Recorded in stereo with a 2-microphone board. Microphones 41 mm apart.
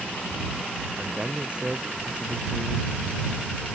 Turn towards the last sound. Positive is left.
turn(degrees=-30)  # may be behind; listen again after turning